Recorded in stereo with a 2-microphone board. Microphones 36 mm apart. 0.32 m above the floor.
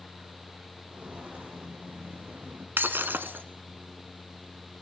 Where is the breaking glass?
75° right (ahead or behind), 1.2 m.